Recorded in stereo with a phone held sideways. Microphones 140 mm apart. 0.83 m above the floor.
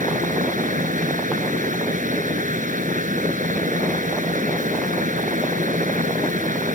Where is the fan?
70° right (ahead or behind).